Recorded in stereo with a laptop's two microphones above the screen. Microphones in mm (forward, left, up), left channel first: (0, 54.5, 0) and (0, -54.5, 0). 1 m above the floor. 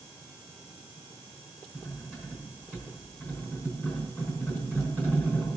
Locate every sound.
1.7 s cutlery clinking: 15° right (ahead or behind), 5 m